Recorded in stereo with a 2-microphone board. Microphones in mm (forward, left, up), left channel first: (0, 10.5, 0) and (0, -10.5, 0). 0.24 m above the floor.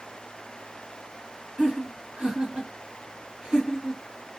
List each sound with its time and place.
1.6 s laughter: 50° right (ahead or behind), 3 m